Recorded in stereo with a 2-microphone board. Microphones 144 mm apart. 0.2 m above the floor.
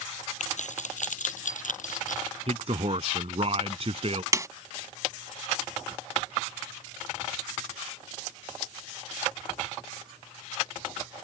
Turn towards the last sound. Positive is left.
turn(degrees=-25)  # may be behind; listen again after turning